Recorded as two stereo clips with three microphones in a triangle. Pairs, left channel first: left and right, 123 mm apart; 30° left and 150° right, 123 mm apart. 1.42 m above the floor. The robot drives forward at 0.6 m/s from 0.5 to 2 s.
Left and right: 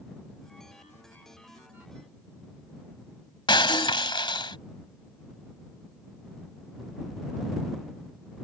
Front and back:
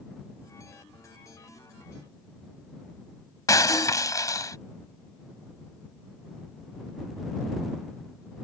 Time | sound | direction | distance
3.5 | breaking glass | 75° left | ?